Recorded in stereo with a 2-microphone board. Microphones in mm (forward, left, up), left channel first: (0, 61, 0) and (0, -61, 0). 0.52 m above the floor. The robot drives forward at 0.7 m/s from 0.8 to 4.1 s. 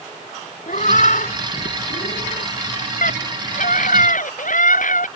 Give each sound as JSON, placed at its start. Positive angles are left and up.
{"t": 0.7, "sound": "a cat meowing", "side_deg": 75}
{"t": 3.0, "sound": "a scream", "side_deg": 80}